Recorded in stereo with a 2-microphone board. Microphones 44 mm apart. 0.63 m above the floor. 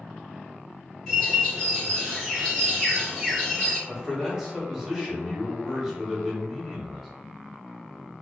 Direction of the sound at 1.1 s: 15° left (ahead or behind).